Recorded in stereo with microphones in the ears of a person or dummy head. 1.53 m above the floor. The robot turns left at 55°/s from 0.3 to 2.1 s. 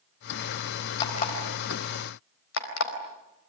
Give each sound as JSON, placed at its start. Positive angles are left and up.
{"t": 1.0, "sound": "an alarm clock", "side_deg": 30, "distance_m": 4.5}